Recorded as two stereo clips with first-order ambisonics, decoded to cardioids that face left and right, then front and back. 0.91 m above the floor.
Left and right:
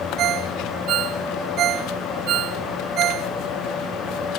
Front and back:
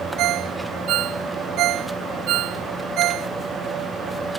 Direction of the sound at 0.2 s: 140° right.